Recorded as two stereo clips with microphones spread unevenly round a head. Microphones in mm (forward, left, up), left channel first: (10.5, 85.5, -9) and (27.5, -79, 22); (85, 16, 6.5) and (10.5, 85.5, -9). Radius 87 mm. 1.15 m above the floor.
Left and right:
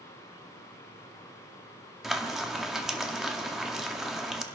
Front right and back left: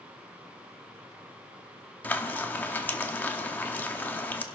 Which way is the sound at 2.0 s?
25° right.